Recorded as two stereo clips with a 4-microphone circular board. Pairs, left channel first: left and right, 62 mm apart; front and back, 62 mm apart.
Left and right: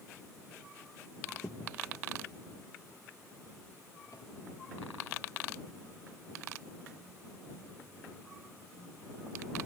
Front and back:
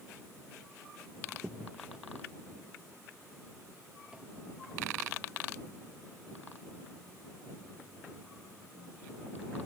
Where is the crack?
105° left.